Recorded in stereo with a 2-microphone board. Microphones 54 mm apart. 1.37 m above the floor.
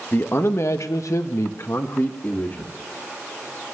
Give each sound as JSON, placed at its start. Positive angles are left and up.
{"t": 0.1, "sound": "a man speaking", "side_deg": 40, "distance_m": 1.4}